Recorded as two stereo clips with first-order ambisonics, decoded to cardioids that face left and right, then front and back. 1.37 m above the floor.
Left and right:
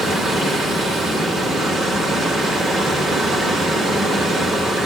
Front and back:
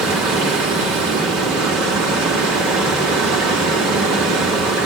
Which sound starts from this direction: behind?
Running water, at 0.0 s.